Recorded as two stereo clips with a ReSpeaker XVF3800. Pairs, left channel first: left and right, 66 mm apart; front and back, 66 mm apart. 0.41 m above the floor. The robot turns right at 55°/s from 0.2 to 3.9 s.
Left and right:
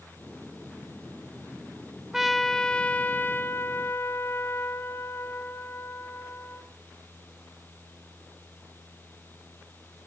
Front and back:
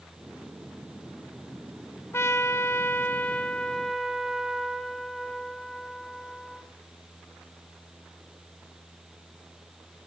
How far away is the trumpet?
About 1.7 m.